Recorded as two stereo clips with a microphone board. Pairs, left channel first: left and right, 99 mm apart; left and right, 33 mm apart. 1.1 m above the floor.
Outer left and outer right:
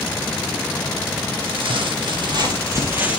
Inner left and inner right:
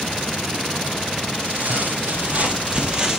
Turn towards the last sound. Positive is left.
turn(degrees=-10)  # may be behind; listen again after turning